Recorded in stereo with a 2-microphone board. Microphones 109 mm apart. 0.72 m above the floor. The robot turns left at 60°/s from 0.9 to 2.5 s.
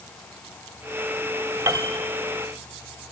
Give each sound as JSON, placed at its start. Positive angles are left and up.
{"t": 1.7, "sound": "a piano", "side_deg": -25, "distance_m": 1.5}